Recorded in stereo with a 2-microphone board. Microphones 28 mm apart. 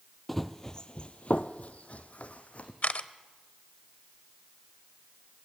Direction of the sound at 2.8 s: 60° left (ahead or behind).